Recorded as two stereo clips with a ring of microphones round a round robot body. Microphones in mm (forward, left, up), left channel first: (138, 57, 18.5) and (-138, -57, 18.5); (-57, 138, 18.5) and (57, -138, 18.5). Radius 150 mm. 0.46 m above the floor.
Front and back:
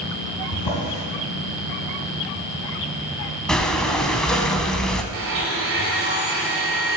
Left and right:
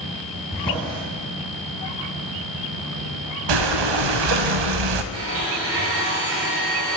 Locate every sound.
0.5 s a drawer: 40° left, 3 m
3.5 s breathing: 65° right, 0.6 m
5.1 s a blender: 110° right, 1.5 m